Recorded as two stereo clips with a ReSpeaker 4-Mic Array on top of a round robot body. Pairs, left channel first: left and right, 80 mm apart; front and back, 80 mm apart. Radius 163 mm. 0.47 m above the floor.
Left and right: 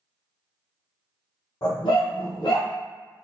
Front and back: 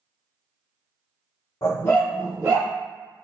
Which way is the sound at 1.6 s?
45° left.